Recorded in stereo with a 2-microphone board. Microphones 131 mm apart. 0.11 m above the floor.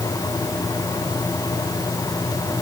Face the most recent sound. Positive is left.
No sound to turn to.